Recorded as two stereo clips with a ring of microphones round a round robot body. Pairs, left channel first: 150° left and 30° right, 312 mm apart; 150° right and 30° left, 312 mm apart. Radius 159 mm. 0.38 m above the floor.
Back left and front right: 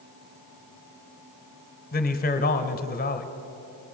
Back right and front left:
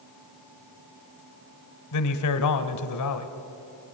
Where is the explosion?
No explosion in this recording.